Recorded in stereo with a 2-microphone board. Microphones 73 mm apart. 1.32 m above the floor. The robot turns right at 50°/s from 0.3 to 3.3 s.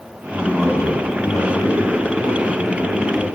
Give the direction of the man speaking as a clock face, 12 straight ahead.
1 o'clock.